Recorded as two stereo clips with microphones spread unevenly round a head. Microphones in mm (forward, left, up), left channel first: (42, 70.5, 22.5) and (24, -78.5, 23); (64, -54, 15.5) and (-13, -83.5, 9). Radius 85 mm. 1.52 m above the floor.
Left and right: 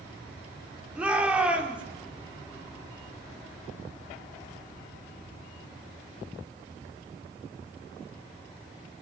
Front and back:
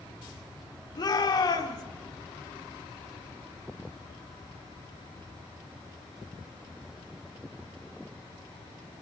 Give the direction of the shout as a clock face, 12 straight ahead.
1 o'clock.